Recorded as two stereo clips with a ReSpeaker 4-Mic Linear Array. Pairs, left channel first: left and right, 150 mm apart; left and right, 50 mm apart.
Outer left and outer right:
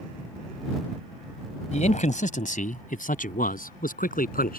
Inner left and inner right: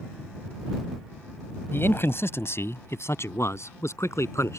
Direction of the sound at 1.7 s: 50° left (ahead or behind).